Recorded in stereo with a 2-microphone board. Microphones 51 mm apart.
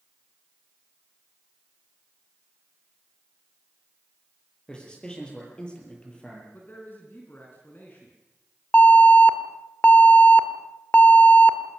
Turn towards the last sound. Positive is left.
turn(degrees=35)  # may be behind; listen again after turning